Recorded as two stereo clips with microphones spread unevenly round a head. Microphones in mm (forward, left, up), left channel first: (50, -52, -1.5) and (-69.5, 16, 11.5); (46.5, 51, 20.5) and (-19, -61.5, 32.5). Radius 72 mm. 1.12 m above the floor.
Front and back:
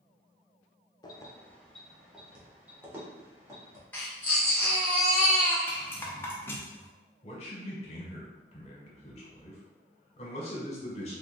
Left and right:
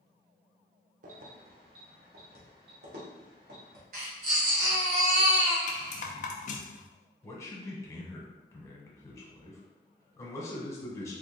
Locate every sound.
1.0 s keys jangling: 90° right, 0.6 m; by 3.8 s 140° right, 1.8 m
3.9 s a baby crying: 110° right, 1.3 m
5.7 s a rattle: 45° left, 0.6 m
7.2 s a man speaking: straight ahead, 1.2 m